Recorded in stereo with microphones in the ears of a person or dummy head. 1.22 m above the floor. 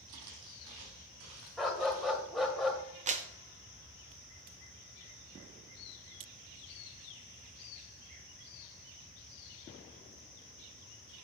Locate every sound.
0.1 s footsteps: 65° right (ahead or behind), 2.5 m; by 2.2 s 75° right (ahead or behind), 5.5 m
1.6 s a dog barking: 5° left (ahead or behind), 1.5 m
3.1 s a clap: 40° right (ahead or behind), 0.7 m